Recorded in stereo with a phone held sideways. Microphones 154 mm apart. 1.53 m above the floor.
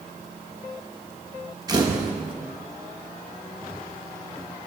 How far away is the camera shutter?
About 1.1 m.